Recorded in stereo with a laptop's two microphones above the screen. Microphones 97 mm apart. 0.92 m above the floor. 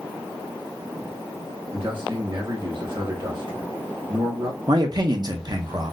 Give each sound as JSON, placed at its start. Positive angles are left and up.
{"t": 1.7, "sound": "a man speaking", "side_deg": -60, "distance_m": 1.5}
{"t": 4.7, "sound": "a man speaking", "side_deg": -45, "distance_m": 0.5}